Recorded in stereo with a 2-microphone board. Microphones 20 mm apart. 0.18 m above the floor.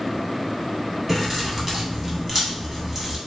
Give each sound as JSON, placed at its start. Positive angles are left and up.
{"t": 1.1, "sound": "keys jangling", "side_deg": -15, "distance_m": 0.8}